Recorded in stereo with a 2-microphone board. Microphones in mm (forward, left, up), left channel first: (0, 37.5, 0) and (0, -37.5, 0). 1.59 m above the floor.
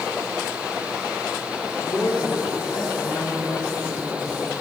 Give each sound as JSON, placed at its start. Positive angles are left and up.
{"t": 1.8, "sound": "a woman speaking", "side_deg": 70, "distance_m": 4.0}